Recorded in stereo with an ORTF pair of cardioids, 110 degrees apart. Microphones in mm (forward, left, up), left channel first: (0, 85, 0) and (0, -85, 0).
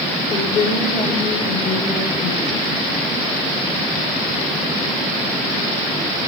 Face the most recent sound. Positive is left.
turn(degrees=45)